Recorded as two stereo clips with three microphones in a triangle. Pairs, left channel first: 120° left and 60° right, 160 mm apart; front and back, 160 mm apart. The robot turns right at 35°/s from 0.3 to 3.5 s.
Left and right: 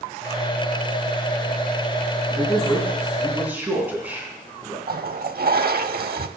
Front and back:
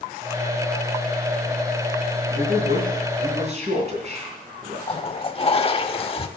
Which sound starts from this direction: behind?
A man speaking, at 2.3 s.